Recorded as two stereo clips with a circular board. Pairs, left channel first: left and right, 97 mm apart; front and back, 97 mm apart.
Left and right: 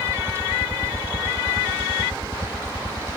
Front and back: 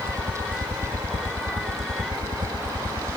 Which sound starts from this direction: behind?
A helicopter, at 0.0 s.